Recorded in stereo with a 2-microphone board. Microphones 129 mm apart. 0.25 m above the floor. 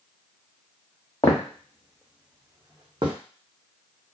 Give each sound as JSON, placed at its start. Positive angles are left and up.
{"t": 1.2, "sound": "footsteps", "side_deg": 25, "distance_m": 0.9}